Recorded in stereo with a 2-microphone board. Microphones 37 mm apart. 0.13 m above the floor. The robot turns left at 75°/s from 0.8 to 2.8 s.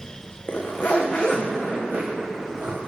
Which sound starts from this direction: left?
A zipper, at 0.5 s.